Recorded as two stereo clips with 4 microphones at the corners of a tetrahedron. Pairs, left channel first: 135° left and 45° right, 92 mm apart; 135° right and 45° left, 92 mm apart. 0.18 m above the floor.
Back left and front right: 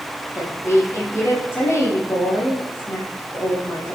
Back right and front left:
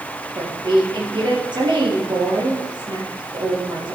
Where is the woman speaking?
75° left, 4.5 m.